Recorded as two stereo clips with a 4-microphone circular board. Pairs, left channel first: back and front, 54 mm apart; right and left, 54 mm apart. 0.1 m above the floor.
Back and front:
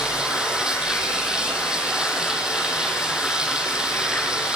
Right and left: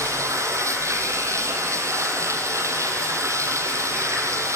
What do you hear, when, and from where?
0.0 s running water: 75° left, 3 m